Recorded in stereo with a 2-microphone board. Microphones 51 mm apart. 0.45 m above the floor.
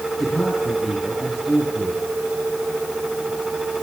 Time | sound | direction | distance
0.2 | a man speaking | centre (ahead or behind) | 6.5 m